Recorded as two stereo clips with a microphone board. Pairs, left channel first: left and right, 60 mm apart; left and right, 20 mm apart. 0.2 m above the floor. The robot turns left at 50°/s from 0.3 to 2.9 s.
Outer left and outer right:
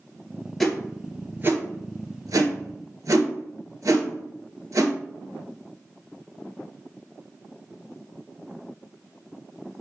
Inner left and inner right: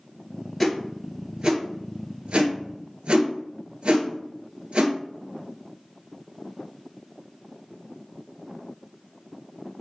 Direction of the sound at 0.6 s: 5° left (ahead or behind).